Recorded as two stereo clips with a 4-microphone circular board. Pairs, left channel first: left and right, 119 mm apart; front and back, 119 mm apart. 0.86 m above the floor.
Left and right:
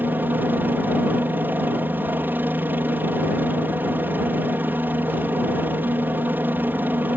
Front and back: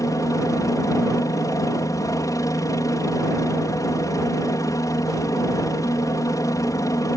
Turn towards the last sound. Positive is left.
turn(degrees=-30)